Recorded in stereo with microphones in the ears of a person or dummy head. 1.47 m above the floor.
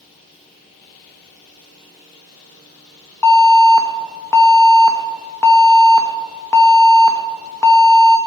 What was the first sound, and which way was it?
An alarm, 15° left (ahead or behind).